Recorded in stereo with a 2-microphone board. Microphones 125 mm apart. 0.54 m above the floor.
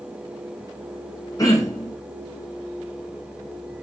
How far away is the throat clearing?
About 4 m.